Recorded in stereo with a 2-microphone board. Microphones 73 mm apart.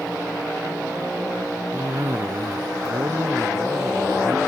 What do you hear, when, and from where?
1.7 s a cough: 40° right (ahead or behind)